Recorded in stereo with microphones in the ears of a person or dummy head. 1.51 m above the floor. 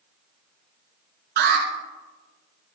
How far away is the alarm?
About 2.5 m.